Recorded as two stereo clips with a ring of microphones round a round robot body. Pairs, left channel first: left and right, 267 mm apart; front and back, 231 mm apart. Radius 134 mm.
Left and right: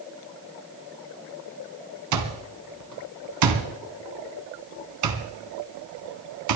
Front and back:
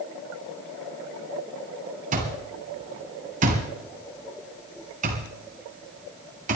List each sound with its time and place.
2.1 s an alarm clock: 115° right, 2 m